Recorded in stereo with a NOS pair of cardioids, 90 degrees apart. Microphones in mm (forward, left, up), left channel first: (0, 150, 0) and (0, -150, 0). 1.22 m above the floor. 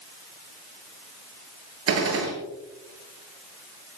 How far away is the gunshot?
About 7 m.